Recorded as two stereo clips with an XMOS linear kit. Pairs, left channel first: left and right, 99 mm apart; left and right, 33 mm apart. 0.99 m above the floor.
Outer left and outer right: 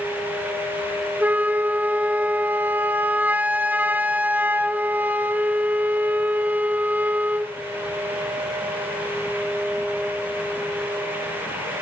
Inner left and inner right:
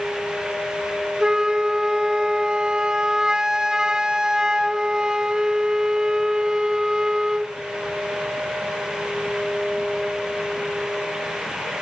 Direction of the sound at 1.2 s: 15° right (ahead or behind).